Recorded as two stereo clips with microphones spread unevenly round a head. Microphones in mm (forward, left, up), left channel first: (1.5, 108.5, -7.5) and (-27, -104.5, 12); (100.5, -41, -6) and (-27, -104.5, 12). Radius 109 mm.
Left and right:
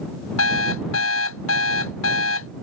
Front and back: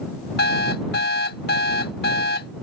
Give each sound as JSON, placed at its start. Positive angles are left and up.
{"t": 0.4, "sound": "an alarm clock", "azimuth_deg": 50}